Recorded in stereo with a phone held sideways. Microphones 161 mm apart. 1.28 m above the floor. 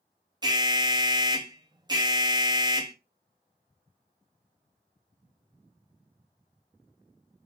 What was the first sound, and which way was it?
An alarm, 25° right (ahead or behind).